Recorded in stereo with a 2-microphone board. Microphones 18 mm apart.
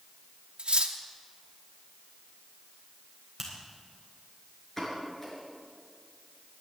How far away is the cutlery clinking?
About 1.0 m.